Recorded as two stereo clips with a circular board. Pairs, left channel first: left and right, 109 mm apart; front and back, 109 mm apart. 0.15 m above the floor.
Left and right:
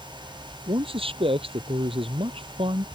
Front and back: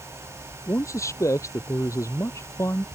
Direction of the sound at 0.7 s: 60° right.